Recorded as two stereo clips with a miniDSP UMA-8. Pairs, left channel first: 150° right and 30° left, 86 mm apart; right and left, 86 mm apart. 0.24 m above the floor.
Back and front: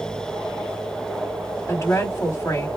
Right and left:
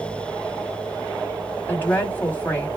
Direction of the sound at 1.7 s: 135° right.